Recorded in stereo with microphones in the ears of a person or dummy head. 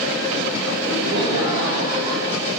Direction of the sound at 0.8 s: 75° right (ahead or behind).